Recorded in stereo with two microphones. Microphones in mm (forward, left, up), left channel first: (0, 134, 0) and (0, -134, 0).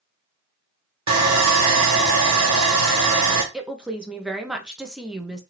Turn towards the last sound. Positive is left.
turn(degrees=-5)  # may be behind; listen again after turning